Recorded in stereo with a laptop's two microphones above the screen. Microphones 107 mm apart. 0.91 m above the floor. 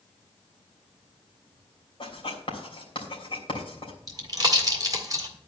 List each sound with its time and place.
2.0 s writing: 50° left (ahead or behind), 3 m
4.1 s a pop: 35° right (ahead or behind), 1.7 m